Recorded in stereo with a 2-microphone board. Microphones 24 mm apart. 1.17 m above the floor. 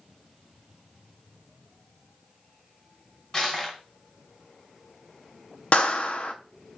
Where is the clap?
50° left (ahead or behind), 0.5 m.